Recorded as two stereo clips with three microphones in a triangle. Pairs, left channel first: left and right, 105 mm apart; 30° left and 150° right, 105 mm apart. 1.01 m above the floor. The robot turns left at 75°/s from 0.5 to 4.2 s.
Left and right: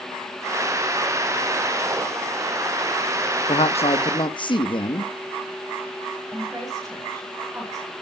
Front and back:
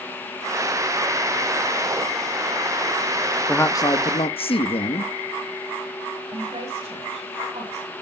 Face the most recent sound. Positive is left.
turn(degrees=-150)